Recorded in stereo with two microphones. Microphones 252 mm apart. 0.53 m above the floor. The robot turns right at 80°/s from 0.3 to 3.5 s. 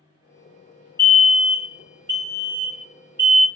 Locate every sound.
1.0 s a fire alarm: 10° left (ahead or behind), 1.7 m; by 3.5 s 5° right (ahead or behind), 1.7 m